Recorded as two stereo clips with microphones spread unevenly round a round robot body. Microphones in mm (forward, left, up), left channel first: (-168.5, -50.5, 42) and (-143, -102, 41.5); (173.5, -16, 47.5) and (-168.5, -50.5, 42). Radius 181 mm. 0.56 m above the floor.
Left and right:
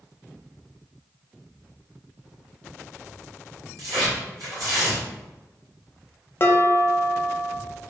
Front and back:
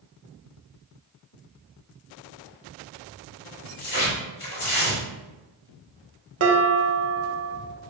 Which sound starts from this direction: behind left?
Dishes clattering, at 6.4 s.